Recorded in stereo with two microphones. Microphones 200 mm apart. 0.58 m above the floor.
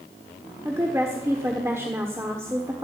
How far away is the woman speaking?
About 1.1 m.